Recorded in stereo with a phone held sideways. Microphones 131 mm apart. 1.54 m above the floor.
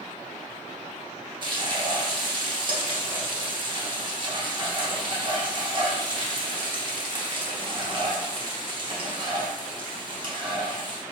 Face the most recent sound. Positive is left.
turn(degrees=-35)  # may be behind; listen again after turning